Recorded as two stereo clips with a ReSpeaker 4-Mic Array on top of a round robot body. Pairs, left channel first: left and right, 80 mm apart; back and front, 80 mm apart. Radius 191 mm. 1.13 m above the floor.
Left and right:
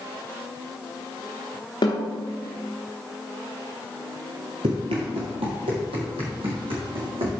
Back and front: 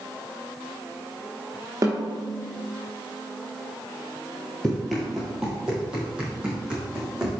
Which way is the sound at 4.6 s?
100° right.